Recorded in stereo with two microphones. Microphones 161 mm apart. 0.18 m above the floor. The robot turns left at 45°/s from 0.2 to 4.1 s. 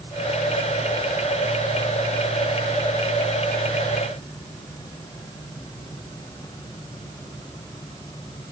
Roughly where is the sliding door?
No sliding door in this recording.